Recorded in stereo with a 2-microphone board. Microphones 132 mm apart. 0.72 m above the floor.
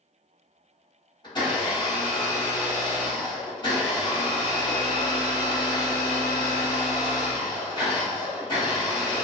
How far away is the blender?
About 1.3 m.